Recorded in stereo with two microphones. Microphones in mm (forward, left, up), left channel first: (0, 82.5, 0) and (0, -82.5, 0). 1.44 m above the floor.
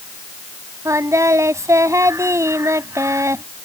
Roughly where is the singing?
Centre.